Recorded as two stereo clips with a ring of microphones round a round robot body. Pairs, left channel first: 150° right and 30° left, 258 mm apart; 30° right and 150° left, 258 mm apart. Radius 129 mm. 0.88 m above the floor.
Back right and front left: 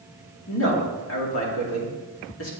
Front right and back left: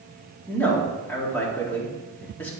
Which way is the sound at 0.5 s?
115° right.